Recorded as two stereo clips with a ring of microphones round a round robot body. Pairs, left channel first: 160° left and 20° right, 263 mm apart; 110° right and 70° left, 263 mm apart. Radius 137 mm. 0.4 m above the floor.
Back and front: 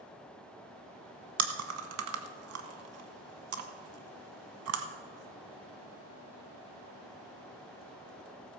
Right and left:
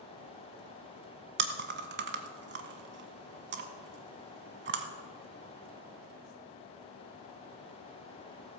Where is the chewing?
15° left, 1.1 m.